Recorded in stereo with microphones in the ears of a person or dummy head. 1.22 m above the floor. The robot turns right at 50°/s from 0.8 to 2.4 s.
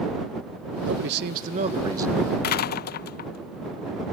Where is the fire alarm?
No fire alarm in this recording.